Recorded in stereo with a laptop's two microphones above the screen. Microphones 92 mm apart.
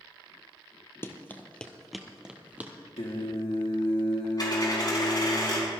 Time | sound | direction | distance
1.0 | running footsteps | 25° left (ahead or behind) | 1.1 m
3.0 | singing | 80° left | 1.7 m
4.4 | a dropped coin | 45° left (ahead or behind) | 5 m